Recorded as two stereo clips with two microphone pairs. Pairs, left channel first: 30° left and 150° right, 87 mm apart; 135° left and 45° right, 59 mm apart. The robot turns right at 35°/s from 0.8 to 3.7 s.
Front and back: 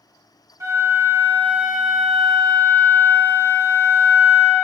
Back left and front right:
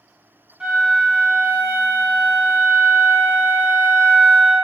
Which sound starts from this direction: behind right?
A flute, at 0.6 s.